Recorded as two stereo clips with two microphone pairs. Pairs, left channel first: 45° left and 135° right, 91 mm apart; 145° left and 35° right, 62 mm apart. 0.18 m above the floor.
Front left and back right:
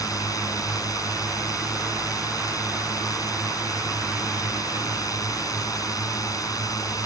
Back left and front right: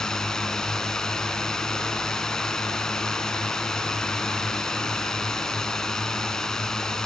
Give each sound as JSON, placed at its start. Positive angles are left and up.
{"t": 0.0, "sound": "a drone", "azimuth_deg": 70}